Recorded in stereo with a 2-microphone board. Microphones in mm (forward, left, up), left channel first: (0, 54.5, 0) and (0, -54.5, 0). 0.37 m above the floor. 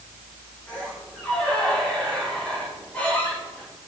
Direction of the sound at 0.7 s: 15° left (ahead or behind).